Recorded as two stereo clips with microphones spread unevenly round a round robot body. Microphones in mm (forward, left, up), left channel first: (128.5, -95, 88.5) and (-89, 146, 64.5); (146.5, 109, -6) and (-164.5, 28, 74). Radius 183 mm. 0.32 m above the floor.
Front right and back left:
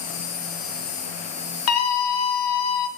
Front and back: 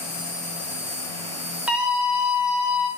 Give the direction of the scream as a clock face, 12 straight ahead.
2 o'clock.